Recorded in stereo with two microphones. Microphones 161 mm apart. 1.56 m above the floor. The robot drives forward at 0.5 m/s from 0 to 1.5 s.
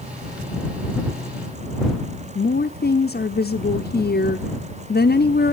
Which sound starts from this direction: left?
A woman speaking, at 2.4 s.